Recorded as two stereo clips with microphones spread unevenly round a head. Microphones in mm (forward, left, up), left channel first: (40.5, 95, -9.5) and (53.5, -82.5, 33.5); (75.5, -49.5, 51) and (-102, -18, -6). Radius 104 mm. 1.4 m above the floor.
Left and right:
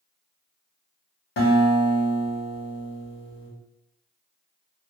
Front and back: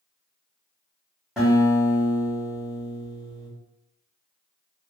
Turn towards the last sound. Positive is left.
turn(degrees=70)